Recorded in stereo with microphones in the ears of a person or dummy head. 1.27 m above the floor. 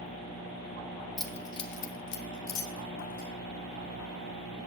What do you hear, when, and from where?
1.2 s keys jangling: 5° right (ahead or behind), 0.8 m; by 3.3 s 85° left, 2 m